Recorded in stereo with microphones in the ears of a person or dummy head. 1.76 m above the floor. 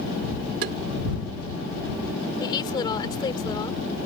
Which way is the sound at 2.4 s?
25° left (ahead or behind).